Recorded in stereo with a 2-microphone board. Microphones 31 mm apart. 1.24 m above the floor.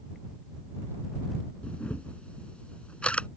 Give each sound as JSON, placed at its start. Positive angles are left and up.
{"t": 1.6, "sound": "a camera shutter", "side_deg": 40}